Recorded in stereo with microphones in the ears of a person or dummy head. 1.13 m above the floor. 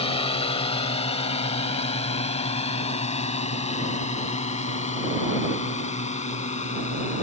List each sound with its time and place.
0.0 s a drone: 35° left (ahead or behind); by 7.2 s 40° left (ahead or behind)